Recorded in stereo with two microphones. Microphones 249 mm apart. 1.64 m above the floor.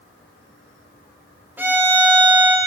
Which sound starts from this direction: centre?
A violin, at 1.6 s.